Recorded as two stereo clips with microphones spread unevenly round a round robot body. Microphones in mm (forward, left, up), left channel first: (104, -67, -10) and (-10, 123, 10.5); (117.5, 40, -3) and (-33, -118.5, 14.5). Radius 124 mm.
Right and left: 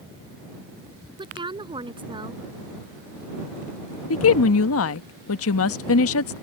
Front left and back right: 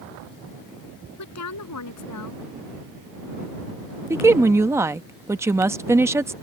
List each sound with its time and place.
1.2 s a woman speaking: 50° left
4.1 s a woman speaking: 55° right